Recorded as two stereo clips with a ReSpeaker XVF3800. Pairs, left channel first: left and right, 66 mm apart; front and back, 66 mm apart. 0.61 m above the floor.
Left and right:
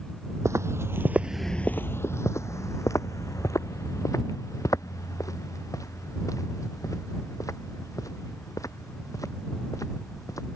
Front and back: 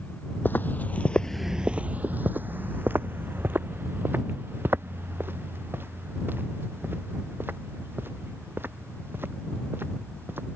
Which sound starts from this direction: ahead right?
Footsteps, at 0.5 s.